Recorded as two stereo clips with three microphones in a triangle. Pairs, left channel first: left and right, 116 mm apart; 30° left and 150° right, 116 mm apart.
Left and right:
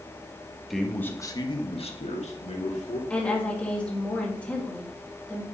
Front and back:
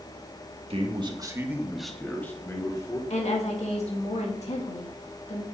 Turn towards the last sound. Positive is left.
turn(degrees=10)